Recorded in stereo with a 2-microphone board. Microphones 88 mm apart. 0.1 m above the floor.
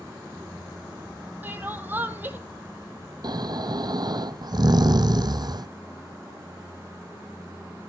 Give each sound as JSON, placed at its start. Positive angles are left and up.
{"t": 1.4, "sound": "crying", "side_deg": -25, "distance_m": 1.2}
{"t": 3.2, "sound": "snoring", "side_deg": -55, "distance_m": 0.8}